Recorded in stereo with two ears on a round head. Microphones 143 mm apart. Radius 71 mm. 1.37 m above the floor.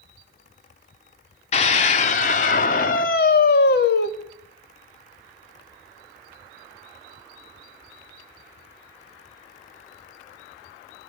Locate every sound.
1.5 s a scream: 45° left (ahead or behind), 4 m; by 4.1 s 80° left, 2.5 m